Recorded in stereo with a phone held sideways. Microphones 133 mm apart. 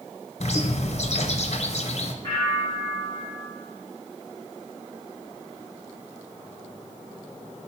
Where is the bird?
55° left (ahead or behind), 0.8 m.